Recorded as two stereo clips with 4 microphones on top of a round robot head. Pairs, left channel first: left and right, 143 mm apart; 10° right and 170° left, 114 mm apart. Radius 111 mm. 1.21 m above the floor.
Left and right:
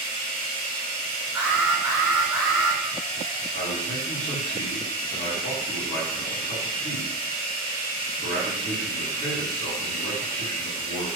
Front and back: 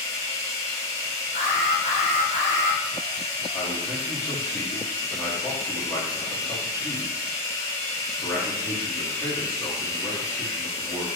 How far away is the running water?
About 0.8 m.